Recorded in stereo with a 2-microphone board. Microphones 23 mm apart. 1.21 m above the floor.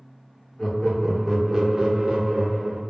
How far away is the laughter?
About 0.9 m.